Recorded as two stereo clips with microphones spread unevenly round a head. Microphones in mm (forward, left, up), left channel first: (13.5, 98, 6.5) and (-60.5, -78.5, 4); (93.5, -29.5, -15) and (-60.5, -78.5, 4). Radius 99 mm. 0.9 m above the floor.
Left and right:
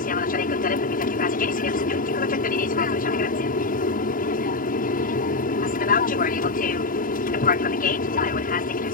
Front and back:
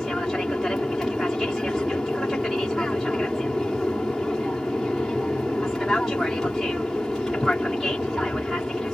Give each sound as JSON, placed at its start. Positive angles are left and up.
{"t": 0.0, "sound": "an aircraft", "azimuth_deg": 105}